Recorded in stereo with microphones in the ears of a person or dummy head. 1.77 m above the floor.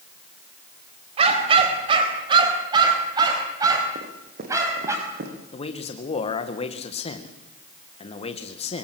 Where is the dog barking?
40° right (ahead or behind), 4 m; by 5.0 s 20° right (ahead or behind), 5.5 m.